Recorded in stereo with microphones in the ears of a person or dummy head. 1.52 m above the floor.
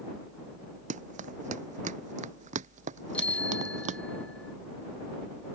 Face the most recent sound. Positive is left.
turn(degrees=10)  # may be behind; listen again after turning